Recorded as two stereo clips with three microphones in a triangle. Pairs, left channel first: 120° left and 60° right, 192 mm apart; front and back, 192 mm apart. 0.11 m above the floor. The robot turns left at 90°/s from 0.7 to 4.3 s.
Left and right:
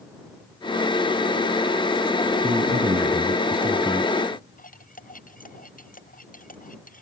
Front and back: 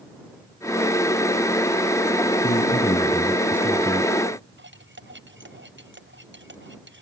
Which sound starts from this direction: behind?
Cutlery clinking, at 4.6 s.